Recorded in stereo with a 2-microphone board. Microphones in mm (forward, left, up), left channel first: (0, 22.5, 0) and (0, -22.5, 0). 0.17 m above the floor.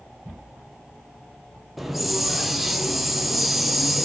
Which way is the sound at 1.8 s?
5° right (ahead or behind).